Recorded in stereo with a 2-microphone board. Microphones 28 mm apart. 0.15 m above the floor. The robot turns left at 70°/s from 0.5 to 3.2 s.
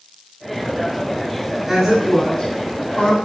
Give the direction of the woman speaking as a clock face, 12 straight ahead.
5 o'clock.